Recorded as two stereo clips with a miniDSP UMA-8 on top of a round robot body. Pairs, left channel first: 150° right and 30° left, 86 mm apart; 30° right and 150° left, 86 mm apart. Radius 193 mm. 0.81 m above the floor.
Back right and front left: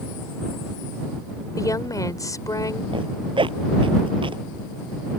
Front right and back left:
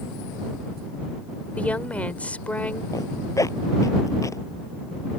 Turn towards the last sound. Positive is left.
turn(degrees=20)